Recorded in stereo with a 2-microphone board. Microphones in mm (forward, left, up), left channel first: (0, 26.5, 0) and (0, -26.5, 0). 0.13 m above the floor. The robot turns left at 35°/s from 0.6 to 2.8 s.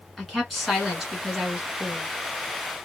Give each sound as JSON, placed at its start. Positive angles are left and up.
{"t": 0.2, "sound": "a woman speaking", "side_deg": 0, "distance_m": 1.5}